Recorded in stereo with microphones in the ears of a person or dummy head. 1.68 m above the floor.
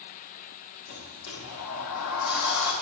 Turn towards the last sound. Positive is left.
turn(degrees=65)  # may be behind; listen again after turning